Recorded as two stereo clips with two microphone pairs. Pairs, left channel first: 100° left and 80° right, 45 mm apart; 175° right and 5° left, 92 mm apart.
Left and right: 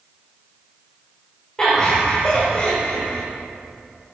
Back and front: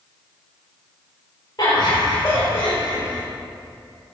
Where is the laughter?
170° left, 2 m; by 3.2 s 140° left, 2 m.